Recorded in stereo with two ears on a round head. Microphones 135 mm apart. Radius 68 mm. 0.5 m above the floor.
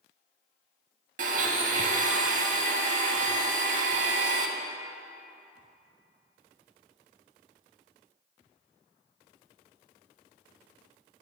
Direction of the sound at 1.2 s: 50° right (ahead or behind).